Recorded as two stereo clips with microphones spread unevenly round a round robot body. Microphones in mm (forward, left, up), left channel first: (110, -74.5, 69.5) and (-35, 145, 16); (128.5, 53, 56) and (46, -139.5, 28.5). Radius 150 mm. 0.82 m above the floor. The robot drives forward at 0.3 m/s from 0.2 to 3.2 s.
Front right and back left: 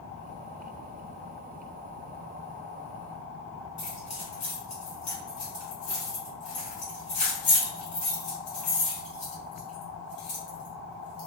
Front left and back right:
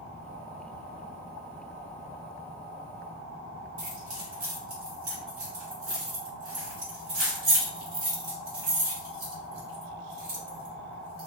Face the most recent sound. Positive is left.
turn(degrees=-125)